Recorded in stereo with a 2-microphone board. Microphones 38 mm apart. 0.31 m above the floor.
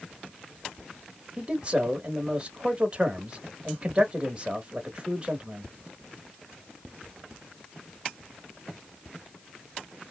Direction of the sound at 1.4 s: 30° right (ahead or behind).